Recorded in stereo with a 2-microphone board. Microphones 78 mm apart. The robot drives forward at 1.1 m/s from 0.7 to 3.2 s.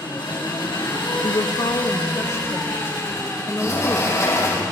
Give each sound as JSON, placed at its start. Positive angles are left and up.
{"t": 0.0, "sound": "an engine running", "side_deg": 75, "distance_m": 6.5}
{"t": 1.2, "sound": "a woman speaking", "side_deg": 85, "distance_m": 0.8}
{"t": 3.6, "sound": "a sliding door", "side_deg": 45, "distance_m": 8.0}